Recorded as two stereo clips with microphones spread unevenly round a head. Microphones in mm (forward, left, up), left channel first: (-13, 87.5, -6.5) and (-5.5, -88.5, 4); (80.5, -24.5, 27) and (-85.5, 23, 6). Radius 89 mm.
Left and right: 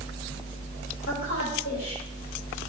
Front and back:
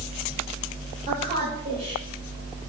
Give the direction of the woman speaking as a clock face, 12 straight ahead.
8 o'clock.